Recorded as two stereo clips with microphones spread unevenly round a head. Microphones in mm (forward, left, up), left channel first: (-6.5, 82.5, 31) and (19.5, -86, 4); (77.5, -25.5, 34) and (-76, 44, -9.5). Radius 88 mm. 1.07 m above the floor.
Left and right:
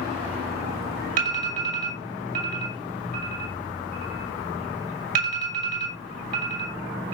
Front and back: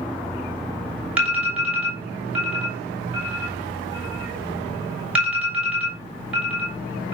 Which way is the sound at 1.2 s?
120° right.